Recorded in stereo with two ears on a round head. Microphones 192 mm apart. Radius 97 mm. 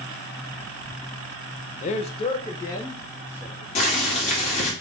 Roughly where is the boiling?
Left.